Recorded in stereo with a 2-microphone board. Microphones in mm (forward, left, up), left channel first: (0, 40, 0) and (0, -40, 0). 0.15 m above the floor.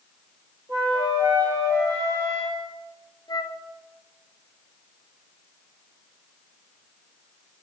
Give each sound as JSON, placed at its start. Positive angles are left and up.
{"t": 0.7, "sound": "a flute", "side_deg": -60, "distance_m": 2.0}
{"t": 3.3, "sound": "a flute", "side_deg": 65, "distance_m": 0.6}